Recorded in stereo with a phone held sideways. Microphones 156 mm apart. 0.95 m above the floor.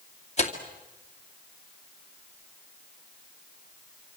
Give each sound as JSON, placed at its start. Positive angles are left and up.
{"t": 0.4, "sound": "tearing paper", "side_deg": 45, "distance_m": 2.5}